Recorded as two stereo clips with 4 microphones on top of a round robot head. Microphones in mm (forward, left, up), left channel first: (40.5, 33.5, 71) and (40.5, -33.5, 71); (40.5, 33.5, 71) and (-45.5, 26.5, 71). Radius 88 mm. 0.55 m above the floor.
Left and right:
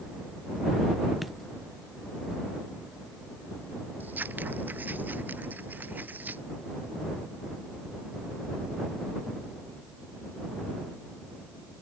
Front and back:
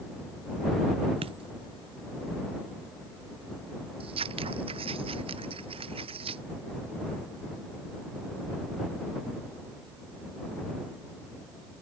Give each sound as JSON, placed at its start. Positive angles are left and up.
{"t": 1.2, "sound": "a dropped coin", "azimuth_deg": 180}
{"t": 4.0, "sound": "scissors", "azimuth_deg": -160}